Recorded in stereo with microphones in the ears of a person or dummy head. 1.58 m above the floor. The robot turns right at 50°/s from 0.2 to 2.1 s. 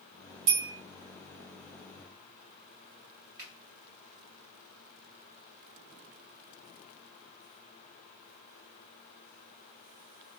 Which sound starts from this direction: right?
A bell, at 0.5 s.